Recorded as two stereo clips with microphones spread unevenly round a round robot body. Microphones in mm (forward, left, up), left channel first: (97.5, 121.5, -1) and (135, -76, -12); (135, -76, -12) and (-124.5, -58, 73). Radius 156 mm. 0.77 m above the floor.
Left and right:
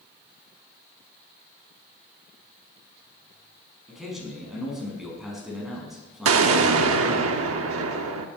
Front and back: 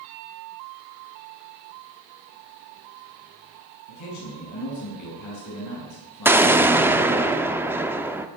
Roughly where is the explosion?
Right.